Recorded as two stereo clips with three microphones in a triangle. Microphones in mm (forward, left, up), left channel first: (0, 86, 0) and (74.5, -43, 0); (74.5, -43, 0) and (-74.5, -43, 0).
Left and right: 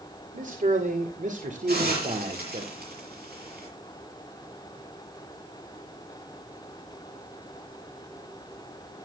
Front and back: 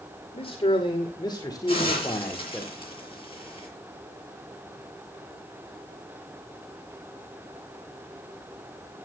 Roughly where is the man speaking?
Ahead right.